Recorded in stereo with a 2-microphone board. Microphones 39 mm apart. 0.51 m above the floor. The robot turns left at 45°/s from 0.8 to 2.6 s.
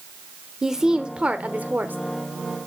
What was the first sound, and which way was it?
A woman speaking, 20° right.